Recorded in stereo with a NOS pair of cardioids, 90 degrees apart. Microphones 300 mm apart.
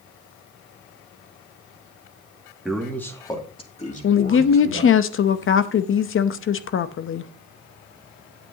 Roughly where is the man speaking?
Ahead.